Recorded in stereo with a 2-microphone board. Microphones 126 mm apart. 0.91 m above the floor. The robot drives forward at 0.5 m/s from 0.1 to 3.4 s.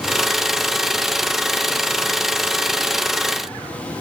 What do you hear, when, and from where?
Only background noise.